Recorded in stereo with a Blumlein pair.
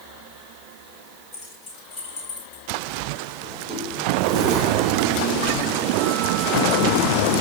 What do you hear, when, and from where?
1.3 s keys jangling: 25° left, 4 m; by 2.7 s 35° left, 3 m
3.4 s a sliding door: 5° right, 3.5 m